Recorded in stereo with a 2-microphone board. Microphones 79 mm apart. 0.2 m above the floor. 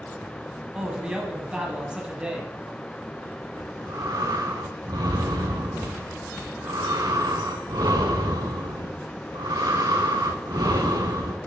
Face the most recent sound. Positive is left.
turn(degrees=-55)  # may be behind; listen again after turning